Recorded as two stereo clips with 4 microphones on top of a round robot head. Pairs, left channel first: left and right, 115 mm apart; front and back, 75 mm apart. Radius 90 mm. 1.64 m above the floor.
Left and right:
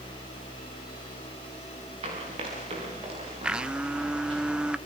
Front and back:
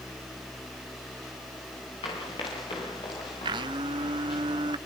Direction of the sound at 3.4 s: 170° right.